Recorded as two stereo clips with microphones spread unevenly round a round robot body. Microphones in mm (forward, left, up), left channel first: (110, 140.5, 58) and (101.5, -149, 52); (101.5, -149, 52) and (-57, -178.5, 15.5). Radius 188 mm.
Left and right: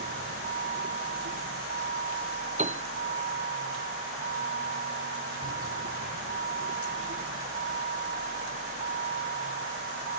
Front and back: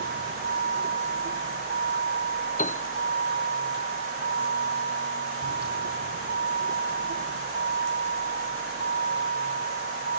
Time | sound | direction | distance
0.0 | a vehicle | 160° right | ?
2.6 | a piano | 25° right | ?